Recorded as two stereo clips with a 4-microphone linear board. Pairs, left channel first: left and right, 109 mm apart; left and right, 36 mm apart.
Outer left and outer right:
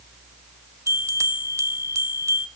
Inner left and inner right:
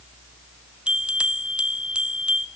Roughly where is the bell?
Right.